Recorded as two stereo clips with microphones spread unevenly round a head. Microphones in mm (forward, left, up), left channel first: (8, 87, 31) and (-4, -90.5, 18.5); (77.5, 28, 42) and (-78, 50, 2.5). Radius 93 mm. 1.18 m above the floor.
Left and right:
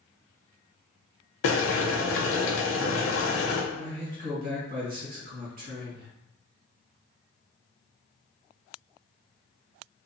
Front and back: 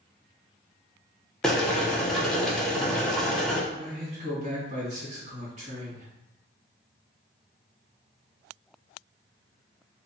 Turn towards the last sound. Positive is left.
turn(degrees=-135)